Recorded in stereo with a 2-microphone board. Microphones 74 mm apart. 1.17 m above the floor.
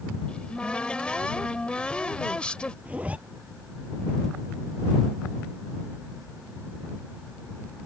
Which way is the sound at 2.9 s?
20° right (ahead or behind).